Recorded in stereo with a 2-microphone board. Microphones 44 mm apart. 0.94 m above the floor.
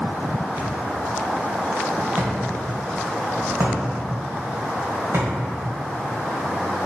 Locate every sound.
0.6 s a thud: 55° right (ahead or behind), 1.7 m